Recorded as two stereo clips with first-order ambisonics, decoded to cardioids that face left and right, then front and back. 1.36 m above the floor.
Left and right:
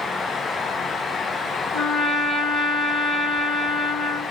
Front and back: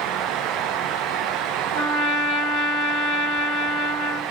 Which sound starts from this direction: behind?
A trumpet, at 1.7 s.